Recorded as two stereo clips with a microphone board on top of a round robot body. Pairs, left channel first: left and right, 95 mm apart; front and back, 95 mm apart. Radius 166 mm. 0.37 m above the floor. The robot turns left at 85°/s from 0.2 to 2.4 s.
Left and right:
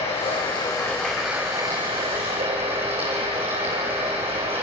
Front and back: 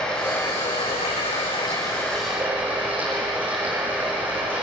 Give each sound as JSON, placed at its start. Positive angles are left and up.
{"t": 0.0, "sound": "running water", "azimuth_deg": 80, "distance_m": 6.5}